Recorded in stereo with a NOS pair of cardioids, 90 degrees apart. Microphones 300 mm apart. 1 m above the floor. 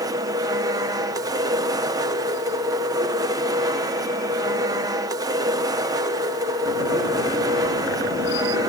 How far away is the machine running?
About 1.0 m.